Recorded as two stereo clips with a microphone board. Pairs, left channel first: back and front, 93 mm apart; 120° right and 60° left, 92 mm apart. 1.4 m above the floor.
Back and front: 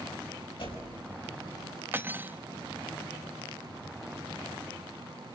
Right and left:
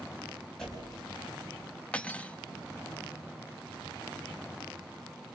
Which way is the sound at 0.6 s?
155° left.